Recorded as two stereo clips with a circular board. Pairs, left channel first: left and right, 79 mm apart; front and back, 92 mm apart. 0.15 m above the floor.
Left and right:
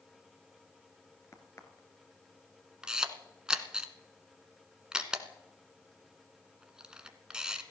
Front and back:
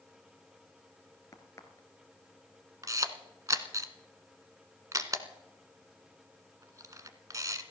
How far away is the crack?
About 1.9 m.